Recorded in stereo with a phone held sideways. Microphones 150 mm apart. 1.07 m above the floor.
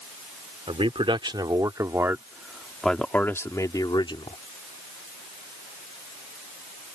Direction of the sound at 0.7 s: 40° right (ahead or behind).